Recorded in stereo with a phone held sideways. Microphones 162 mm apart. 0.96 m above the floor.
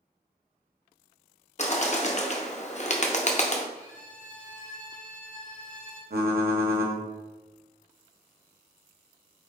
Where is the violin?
45° left (ahead or behind), 0.9 m.